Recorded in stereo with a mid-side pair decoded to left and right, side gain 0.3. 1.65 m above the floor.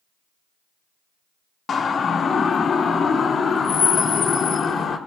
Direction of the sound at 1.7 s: 65° left.